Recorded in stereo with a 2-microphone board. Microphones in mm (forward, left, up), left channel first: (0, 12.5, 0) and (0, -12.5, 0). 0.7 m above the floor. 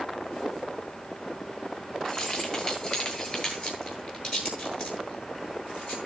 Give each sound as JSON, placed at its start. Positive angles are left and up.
{"t": 2.0, "sound": "keys jangling", "side_deg": 35, "distance_m": 10.0}